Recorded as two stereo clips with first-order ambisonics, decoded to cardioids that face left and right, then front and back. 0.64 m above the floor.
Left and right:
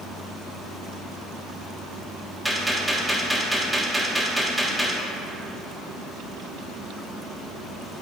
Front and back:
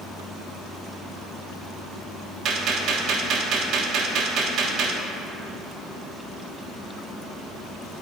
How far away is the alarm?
I don't hear an alarm.